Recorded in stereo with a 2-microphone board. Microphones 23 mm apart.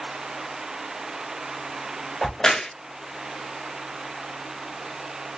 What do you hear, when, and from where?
2.2 s a crack: 25° left (ahead or behind), 1.0 m